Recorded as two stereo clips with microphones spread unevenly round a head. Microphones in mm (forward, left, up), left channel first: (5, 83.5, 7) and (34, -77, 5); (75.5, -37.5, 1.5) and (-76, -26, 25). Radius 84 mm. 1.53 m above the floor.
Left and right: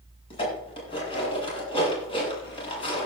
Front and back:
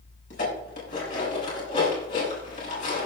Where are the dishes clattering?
40° left, 8 m.